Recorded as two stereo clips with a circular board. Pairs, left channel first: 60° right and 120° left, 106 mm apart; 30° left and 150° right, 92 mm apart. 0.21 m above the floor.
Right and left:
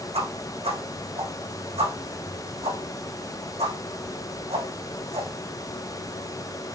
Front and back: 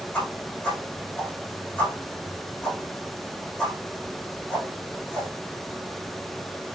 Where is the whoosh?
110° left, 6.5 m.